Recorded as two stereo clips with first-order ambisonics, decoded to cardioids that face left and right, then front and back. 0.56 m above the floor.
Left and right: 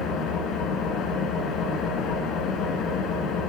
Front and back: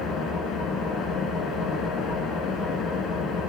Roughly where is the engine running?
Ahead left.